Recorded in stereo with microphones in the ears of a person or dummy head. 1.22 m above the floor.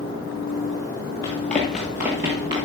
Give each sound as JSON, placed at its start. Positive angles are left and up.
{"t": 1.2, "sound": "running footsteps", "side_deg": 15, "distance_m": 1.5}